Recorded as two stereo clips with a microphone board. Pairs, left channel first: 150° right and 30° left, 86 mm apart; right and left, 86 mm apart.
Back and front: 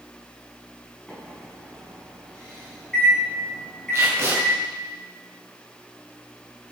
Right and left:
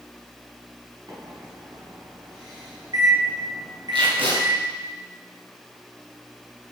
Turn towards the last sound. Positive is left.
turn(degrees=90)